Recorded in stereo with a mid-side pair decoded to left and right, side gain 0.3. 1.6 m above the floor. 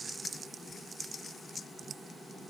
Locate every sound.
Only background noise.